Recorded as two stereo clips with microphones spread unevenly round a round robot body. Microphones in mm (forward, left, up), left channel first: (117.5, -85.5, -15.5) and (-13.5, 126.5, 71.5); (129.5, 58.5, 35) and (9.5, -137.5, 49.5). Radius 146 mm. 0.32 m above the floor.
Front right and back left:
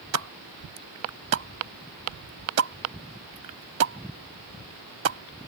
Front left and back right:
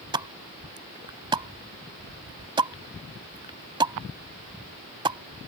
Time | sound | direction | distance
0.1 | a pop | 165° left | ?